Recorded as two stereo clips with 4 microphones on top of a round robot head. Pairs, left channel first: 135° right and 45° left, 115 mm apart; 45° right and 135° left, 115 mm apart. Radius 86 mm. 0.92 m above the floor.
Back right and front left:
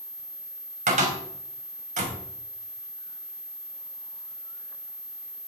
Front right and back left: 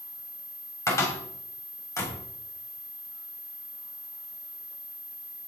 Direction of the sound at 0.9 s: 20° left.